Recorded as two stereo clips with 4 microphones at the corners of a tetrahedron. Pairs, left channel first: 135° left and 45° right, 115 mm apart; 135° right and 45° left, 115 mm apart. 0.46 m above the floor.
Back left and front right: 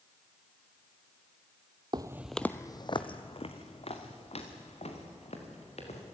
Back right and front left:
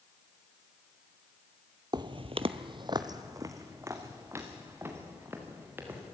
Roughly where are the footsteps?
Ahead.